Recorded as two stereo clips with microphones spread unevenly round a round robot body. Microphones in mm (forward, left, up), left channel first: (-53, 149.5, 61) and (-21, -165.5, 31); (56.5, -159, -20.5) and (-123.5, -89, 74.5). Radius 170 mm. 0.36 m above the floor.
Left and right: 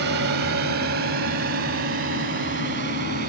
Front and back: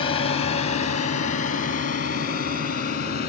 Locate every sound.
0.0 s a drone: 40° right; by 3.3 s 20° right